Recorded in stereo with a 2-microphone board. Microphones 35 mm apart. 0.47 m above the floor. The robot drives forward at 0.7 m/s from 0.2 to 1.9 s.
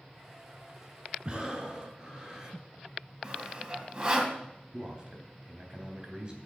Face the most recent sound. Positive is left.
turn(degrees=-30)  # may be behind; listen again after turning